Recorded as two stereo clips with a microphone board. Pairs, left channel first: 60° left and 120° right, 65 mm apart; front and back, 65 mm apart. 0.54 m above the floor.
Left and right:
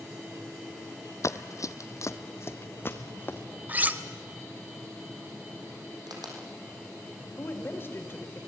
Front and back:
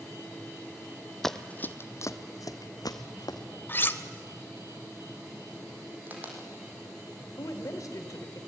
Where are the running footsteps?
85° left, 0.8 m; by 3.4 s straight ahead, 2 m.